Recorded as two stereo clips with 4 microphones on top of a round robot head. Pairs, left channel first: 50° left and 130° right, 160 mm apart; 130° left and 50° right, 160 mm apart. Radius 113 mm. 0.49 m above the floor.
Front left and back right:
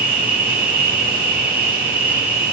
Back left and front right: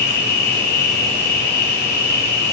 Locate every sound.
0.0 s an insect: 150° left, 1.5 m